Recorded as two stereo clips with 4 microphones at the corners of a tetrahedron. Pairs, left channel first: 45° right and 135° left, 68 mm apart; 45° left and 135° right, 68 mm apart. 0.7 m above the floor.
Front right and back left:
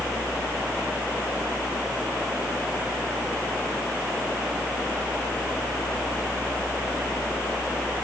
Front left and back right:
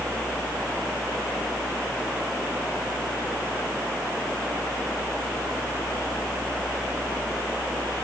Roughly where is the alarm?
No alarm in this recording.